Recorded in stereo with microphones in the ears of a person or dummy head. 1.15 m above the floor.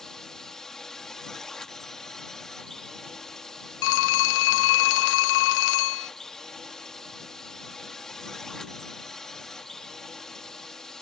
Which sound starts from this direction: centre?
A drone, at 0.0 s.